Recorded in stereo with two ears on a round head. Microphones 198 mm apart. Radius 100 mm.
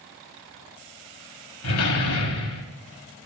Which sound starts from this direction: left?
A door slam, at 1.6 s.